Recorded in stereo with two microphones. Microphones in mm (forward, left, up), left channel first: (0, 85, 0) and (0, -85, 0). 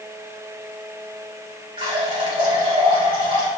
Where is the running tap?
30° right (ahead or behind), 2.5 m.